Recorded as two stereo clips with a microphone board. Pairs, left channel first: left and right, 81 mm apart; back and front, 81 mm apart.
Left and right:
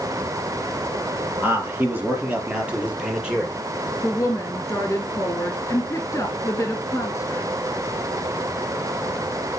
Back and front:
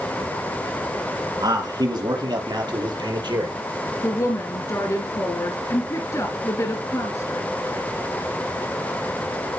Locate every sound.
1.4 s a man speaking: 25° right, 4 m; by 3.5 s 10° right, 5 m
4.0 s a woman speaking: 145° left, 2 m